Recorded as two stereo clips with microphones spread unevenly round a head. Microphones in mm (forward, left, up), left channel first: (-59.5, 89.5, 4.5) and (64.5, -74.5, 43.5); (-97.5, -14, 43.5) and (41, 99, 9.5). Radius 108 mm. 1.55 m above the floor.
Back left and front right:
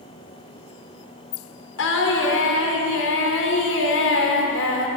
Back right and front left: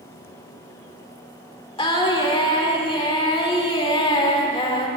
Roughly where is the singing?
Behind.